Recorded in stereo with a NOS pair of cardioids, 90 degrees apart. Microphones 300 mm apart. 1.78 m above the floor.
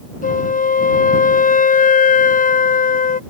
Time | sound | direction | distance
0.2 | a flute | 25° left | ?